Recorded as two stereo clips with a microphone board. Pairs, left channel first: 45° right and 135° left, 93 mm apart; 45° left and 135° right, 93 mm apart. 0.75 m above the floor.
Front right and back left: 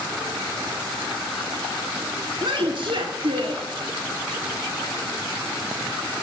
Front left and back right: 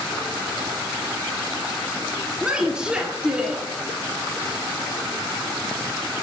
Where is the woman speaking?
145° left, 1.8 m.